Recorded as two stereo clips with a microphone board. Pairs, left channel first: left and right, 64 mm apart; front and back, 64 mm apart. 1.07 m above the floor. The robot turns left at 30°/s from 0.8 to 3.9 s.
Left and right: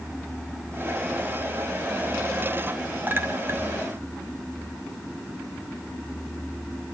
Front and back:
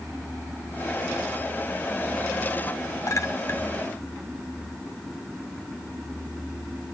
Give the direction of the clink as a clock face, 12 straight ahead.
1 o'clock.